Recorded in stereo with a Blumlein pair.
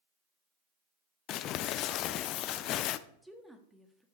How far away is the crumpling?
About 0.5 m.